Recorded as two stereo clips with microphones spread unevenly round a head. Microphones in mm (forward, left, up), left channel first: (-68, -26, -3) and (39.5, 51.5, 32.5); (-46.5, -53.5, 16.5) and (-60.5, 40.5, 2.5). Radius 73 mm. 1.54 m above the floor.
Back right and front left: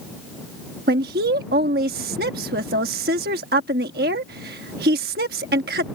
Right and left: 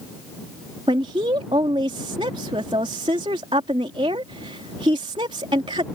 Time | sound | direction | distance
0.9 | a woman speaking | 35° left | ?